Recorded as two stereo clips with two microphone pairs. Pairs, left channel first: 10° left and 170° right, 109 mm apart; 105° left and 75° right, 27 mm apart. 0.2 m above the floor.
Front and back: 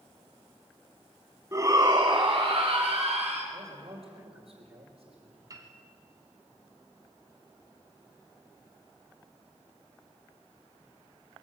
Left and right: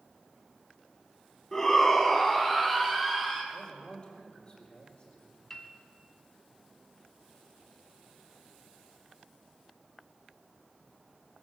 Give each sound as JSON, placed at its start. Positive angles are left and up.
{"t": 1.5, "sound": "a shout", "azimuth_deg": 160, "distance_m": 1.2}
{"t": 3.5, "sound": "a man speaking", "azimuth_deg": 165, "distance_m": 4.5}
{"t": 5.5, "sound": "a piano", "azimuth_deg": 165, "distance_m": 1.6}